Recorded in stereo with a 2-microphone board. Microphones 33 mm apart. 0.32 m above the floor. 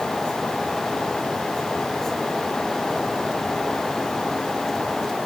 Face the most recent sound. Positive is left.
No sound to turn to.